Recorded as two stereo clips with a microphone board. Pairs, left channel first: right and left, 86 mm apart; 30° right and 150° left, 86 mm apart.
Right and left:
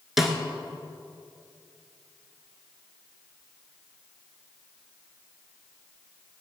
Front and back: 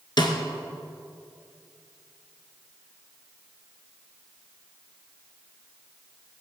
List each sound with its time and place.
0.2 s a snare drum: 5° left, 1.9 m